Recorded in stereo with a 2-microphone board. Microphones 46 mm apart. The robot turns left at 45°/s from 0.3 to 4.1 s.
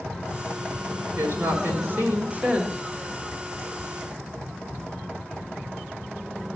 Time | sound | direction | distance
1.2 | a woman speaking | 80° right | 2.5 m